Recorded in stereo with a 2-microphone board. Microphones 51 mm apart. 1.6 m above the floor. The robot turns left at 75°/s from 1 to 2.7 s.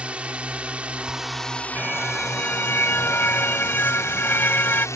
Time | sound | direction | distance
0.0 | a drone | 155° right | ?
1.8 | a car horn | 155° right | ?